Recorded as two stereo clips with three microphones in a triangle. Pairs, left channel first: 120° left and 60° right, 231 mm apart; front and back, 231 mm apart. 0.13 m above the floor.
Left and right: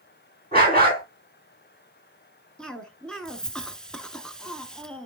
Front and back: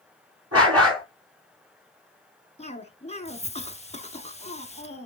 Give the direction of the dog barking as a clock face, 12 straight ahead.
6 o'clock.